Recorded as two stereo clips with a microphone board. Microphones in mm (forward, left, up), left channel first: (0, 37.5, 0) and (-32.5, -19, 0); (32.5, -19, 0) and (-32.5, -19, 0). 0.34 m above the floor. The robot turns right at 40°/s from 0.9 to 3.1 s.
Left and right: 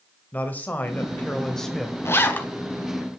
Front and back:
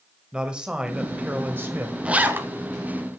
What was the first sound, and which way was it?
A man speaking, 110° left.